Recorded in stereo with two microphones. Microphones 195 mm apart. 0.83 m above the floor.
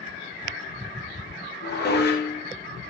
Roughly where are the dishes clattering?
Left.